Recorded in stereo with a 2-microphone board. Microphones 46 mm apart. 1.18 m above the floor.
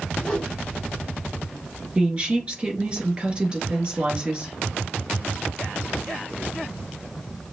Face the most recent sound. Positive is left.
turn(degrees=-20)  # may be behind; listen again after turning